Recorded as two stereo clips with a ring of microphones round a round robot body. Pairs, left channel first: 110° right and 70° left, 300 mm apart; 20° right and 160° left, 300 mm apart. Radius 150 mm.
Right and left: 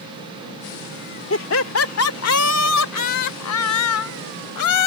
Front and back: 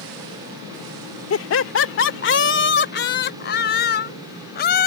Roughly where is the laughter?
Ahead right.